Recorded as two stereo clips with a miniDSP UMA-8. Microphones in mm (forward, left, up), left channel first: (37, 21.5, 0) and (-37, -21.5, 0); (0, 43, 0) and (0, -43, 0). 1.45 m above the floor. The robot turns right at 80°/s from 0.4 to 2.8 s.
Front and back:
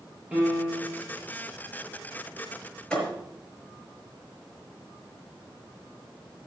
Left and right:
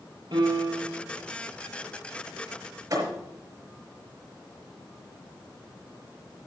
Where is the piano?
75° right, 7 m; by 1.0 s 25° right, 7 m.